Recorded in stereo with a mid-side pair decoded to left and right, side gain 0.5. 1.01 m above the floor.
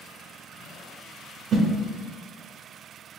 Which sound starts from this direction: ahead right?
A whoosh, at 1.5 s.